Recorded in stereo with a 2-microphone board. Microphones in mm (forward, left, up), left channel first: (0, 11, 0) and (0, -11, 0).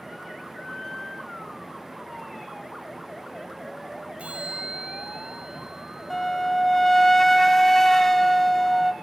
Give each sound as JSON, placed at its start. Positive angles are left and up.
{"t": 4.2, "sound": "a bell", "side_deg": -65, "distance_m": 6.0}
{"t": 6.1, "sound": "a flute", "side_deg": 15, "distance_m": 0.8}